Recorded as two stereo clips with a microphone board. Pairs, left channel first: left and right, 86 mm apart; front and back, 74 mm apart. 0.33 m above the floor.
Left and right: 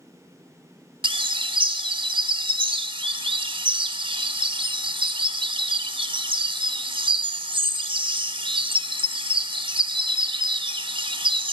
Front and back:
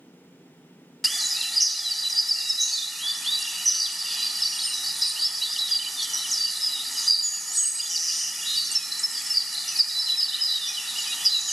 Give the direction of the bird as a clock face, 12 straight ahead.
3 o'clock.